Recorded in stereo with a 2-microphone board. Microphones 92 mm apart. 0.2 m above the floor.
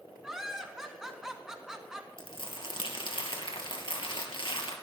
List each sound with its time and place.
0.2 s laughter: 5° right (ahead or behind), 2 m
2.2 s crumpling: 65° left (ahead or behind), 2.5 m